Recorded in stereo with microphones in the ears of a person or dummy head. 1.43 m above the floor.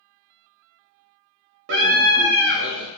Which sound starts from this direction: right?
A scream, at 1.7 s.